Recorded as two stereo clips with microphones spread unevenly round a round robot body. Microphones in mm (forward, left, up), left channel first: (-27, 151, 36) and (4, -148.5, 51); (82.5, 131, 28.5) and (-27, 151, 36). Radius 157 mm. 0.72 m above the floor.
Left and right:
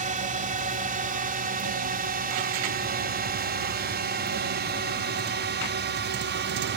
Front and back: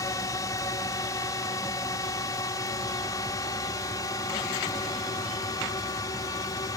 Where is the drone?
35° right; by 6.8 s 50° right.